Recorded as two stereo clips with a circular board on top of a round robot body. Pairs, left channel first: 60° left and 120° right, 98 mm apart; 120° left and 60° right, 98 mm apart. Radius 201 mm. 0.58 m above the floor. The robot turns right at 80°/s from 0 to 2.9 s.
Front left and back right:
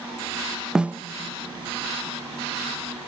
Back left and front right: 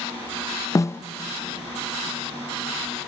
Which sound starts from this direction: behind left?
A snare drum, at 0.8 s.